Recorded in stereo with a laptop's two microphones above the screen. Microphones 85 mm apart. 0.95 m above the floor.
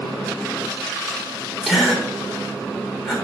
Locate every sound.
1.6 s a gasp: 5° left (ahead or behind), 3 m